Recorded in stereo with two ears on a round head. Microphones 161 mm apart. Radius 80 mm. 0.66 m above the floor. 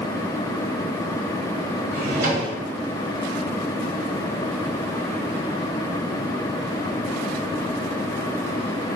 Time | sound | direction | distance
1.9 | a drawer | 50° right (ahead or behind) | 1.6 m